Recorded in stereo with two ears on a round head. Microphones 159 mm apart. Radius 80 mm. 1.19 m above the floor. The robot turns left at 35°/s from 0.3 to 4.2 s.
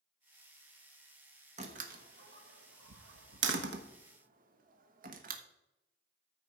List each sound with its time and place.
1.6 s a door slam: 40° right (ahead or behind), 1.2 m; by 5.4 s 50° right (ahead or behind), 1.2 m